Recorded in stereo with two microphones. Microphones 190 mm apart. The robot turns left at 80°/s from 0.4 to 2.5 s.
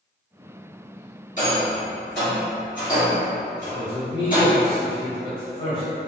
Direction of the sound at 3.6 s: 30° left (ahead or behind).